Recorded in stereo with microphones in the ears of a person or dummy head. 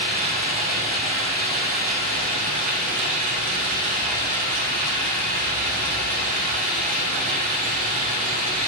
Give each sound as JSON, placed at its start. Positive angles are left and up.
{"t": 0.0, "sound": "running water", "side_deg": -45, "distance_m": 3.5}